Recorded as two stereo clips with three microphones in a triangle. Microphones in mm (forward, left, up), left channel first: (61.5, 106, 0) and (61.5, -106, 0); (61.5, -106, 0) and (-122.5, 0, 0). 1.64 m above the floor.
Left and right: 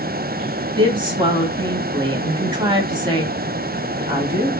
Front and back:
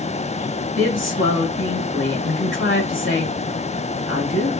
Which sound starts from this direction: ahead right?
A woman speaking, at 0.8 s.